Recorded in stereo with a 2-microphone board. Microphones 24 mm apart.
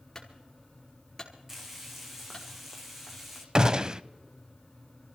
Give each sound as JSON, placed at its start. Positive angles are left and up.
{"t": 0.1, "sound": "a clunk", "side_deg": 25, "distance_m": 4.0}
{"t": 1.5, "sound": "frying", "side_deg": -10, "distance_m": 3.0}
{"t": 3.5, "sound": "a gunshot", "side_deg": -35, "distance_m": 0.5}